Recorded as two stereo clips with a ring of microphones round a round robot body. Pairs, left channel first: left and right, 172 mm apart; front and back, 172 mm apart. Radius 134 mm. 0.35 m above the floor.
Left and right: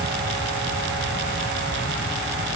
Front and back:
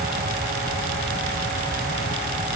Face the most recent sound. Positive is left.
No sound to turn to.